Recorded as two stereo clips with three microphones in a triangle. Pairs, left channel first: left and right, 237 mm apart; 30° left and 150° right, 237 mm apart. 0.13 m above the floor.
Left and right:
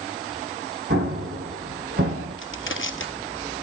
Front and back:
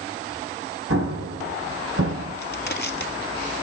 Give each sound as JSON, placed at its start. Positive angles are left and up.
{"t": 0.9, "sound": "an explosion", "azimuth_deg": -135, "distance_m": 3.5}
{"t": 2.4, "sound": "crushing", "azimuth_deg": 65, "distance_m": 1.4}